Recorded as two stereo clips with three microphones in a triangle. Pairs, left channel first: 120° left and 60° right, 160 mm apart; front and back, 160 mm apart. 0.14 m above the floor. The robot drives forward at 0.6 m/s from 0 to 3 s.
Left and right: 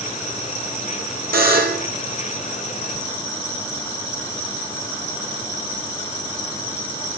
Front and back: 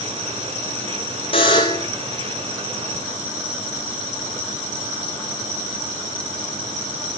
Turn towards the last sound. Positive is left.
turn(degrees=-100)